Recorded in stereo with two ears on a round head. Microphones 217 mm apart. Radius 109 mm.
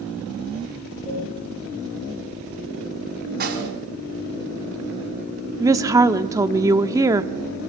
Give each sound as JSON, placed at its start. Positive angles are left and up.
{"t": 1.1, "sound": "a cowbell", "side_deg": 25, "distance_m": 6.5}
{"t": 3.4, "sound": "a snare drum", "side_deg": -45, "distance_m": 4.0}
{"t": 5.6, "sound": "a woman speaking", "side_deg": -15, "distance_m": 0.9}